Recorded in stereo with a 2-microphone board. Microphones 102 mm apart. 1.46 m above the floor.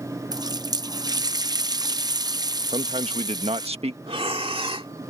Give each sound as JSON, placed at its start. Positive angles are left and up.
{"t": 0.3, "sound": "a running tap", "side_deg": -40}
{"t": 2.7, "sound": "a man speaking", "side_deg": -75}
{"t": 4.1, "sound": "breathing", "side_deg": -60}